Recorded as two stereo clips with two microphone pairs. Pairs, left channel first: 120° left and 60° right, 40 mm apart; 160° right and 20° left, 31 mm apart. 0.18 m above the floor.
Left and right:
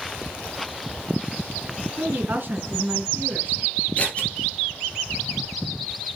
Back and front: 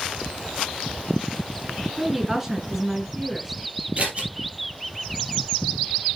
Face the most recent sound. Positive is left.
turn(degrees=65)